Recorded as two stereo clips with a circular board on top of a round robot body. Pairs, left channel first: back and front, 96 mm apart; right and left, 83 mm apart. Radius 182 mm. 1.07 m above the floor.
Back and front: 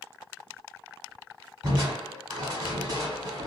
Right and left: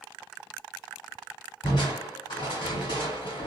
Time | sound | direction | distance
1.6 | crushing | 50° right | 1.3 m